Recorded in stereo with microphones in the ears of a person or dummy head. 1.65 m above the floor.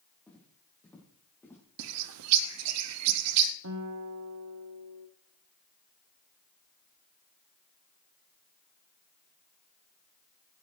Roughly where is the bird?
Right.